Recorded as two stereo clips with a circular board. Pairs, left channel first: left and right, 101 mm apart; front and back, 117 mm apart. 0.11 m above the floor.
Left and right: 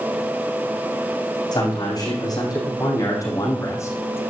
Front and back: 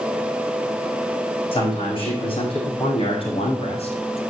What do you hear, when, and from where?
1.5 s a man speaking: 40° left, 6.5 m; by 4.2 s 25° left, 3 m